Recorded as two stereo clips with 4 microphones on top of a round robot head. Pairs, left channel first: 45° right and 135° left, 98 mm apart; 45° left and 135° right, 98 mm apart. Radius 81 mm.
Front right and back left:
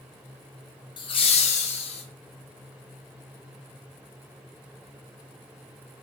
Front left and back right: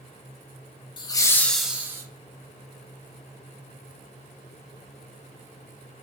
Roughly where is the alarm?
I don't hear an alarm.